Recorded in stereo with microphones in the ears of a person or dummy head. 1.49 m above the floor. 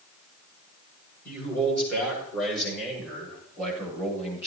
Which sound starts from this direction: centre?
A man speaking, at 1.2 s.